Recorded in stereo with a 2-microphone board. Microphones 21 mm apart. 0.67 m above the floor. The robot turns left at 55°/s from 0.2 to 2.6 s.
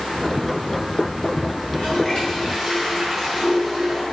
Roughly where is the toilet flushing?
Ahead left.